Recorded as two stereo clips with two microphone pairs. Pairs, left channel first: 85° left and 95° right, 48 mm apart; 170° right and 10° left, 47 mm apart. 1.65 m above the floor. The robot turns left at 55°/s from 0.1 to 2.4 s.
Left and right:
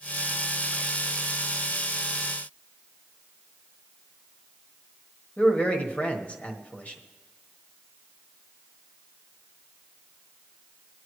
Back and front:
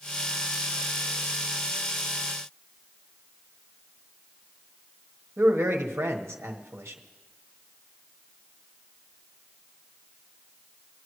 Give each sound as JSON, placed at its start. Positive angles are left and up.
{"t": 5.4, "sound": "a man speaking", "azimuth_deg": 25, "distance_m": 1.3}